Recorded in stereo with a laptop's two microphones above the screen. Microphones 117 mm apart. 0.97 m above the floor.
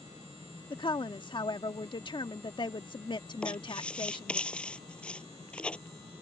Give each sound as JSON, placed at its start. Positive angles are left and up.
{"t": 0.7, "sound": "a woman speaking", "side_deg": 45}
{"t": 3.4, "sound": "writing", "side_deg": 10}